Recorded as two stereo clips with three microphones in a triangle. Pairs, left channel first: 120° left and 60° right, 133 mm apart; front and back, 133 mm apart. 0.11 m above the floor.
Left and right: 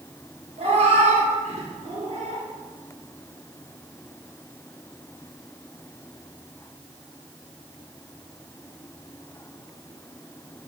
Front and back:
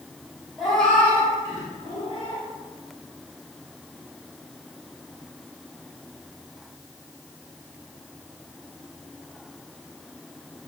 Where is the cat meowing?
90° right, 1.1 m; by 2.5 s 25° right, 1.1 m.